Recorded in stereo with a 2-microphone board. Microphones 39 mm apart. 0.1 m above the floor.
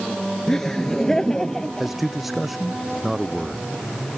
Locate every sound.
0.5 s laughter: 10° left (ahead or behind)
1.8 s a man speaking: centre (ahead or behind)